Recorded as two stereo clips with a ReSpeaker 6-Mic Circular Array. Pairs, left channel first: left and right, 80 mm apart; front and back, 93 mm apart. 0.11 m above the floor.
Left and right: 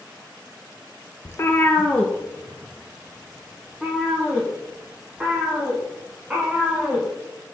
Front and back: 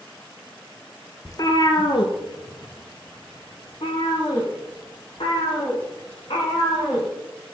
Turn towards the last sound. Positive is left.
turn(degrees=-10)